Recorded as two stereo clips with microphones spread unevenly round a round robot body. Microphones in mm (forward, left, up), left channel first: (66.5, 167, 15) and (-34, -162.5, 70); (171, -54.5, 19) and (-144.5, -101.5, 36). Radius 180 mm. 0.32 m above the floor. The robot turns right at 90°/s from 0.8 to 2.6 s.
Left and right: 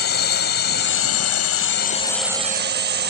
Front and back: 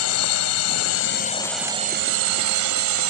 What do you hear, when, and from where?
0.0 s a drone: 30° left; by 3.1 s 170° right